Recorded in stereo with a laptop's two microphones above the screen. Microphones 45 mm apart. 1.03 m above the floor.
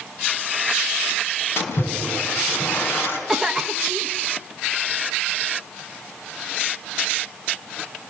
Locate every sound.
1.6 s a splash: 60° left (ahead or behind), 4.5 m
3.3 s a cough: 5° right (ahead or behind), 1.0 m